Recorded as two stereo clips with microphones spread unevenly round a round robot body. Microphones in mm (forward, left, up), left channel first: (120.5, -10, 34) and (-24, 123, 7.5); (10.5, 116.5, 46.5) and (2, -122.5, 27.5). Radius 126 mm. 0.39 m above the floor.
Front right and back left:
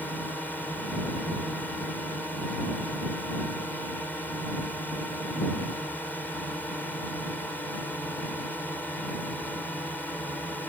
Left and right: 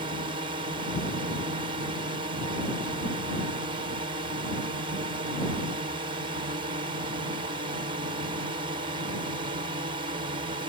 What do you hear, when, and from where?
0.0 s a drone: 130° right